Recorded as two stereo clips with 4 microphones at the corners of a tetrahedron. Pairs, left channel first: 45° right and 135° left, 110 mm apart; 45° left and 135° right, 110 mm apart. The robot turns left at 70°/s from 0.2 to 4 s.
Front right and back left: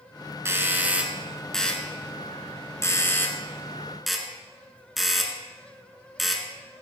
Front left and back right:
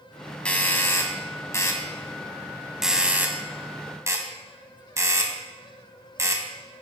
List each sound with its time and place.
0.5 s a doorbell: 110° left, 1.5 m; by 6.5 s 135° right, 1.5 m